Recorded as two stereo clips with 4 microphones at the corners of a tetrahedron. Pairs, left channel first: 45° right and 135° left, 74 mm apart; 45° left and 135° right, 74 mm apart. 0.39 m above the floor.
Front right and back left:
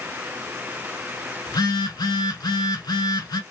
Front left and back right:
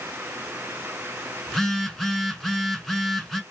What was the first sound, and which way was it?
A phone buzzing, 40° right.